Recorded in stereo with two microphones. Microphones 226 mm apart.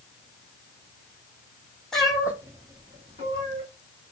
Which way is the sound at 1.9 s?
Centre (ahead or behind).